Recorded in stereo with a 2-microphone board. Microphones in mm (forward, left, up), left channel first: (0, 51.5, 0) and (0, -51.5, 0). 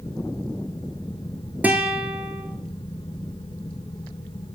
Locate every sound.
1.6 s a guitar: 15° right (ahead or behind), 0.6 m